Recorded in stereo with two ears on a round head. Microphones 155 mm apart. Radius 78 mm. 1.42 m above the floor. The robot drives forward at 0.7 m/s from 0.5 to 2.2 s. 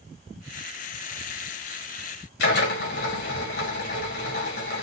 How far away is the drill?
About 5 m.